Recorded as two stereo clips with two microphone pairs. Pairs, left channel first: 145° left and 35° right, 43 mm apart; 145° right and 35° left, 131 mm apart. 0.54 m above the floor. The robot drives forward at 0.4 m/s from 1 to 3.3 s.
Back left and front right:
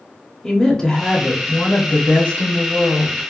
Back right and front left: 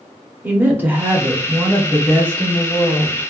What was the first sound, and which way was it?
A woman speaking, 90° left.